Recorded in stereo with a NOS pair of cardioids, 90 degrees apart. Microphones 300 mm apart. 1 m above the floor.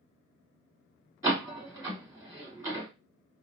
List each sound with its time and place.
1.2 s a door slam: 10° right, 1.6 m